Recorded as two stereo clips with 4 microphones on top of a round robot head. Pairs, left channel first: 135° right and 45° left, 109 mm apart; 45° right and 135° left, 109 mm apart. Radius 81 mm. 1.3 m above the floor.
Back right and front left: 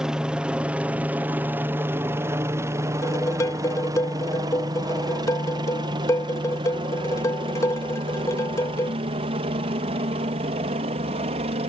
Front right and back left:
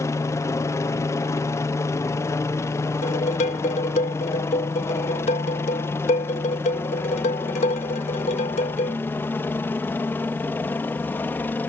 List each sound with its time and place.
0.0 s a helicopter: 30° right; by 11.7 s 25° left
3.0 s dishes clattering: 70° right